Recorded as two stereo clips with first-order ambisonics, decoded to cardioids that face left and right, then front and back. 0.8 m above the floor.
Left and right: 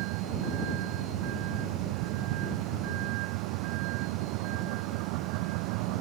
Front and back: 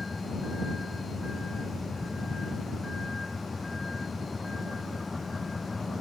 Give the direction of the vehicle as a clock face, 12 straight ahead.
3 o'clock.